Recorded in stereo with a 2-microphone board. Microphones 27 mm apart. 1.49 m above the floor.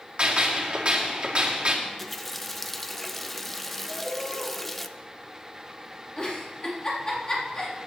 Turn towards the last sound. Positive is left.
turn(degrees=35)  # may be behind; listen again after turning